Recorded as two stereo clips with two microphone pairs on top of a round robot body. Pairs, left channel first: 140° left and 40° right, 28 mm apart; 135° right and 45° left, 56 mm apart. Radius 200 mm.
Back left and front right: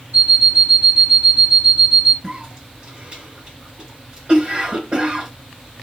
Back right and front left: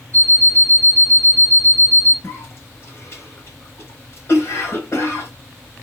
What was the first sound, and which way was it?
An alarm clock, 80° right.